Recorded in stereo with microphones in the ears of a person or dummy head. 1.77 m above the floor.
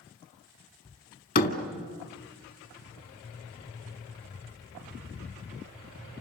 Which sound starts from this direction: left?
A door slam, at 1.4 s.